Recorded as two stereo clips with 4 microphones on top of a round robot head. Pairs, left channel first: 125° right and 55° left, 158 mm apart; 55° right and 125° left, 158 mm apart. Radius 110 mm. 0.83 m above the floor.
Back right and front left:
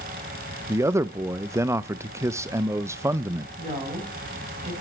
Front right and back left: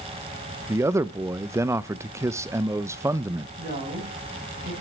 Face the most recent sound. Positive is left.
turn(degrees=105)